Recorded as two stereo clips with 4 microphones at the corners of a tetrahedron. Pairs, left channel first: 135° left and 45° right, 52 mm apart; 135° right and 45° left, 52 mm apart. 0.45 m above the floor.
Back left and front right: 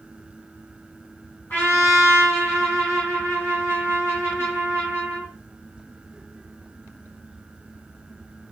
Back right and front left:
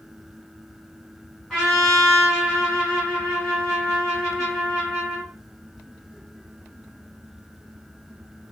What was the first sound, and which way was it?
A trumpet, 135° left.